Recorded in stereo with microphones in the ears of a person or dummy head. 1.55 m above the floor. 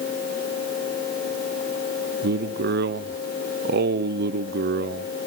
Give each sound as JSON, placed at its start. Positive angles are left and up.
{"t": 2.2, "sound": "a man speaking", "side_deg": -50, "distance_m": 0.8}